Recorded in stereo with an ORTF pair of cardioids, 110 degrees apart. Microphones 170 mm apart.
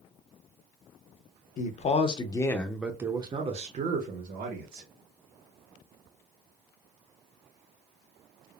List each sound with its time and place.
1.6 s a man speaking: 45° left, 0.9 m; by 4.9 s 60° right, 1.3 m